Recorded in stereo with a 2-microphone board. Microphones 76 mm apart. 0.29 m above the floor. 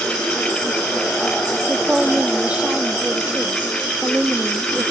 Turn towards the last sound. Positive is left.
turn(degrees=-15)  # may be behind; listen again after turning